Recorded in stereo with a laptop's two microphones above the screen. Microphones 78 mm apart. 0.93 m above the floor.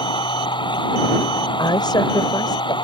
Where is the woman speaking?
65° left (ahead or behind).